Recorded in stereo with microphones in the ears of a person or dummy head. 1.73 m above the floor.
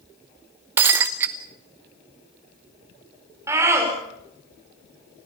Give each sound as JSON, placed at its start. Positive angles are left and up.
{"t": 0.8, "sound": "breaking glass", "side_deg": -15, "distance_m": 0.9}
{"t": 3.5, "sound": "a scream", "side_deg": -15, "distance_m": 7.0}